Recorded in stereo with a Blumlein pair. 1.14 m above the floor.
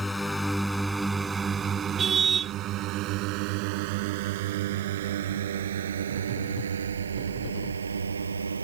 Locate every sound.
0.0 s a drone: 10° left; by 8.7 s 75° right
2.0 s a car horn: 20° right